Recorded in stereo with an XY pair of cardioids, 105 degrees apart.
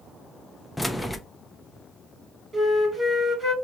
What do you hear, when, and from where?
0.8 s keys jangling: 15° left, 0.5 m
2.5 s a flute: 25° right, 2.5 m